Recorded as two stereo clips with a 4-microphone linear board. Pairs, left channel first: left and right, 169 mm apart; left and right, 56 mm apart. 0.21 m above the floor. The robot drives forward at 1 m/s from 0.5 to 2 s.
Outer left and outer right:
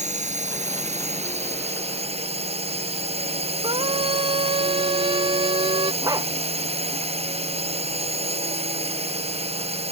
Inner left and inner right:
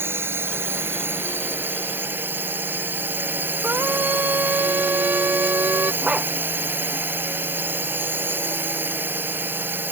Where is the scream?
30° right (ahead or behind).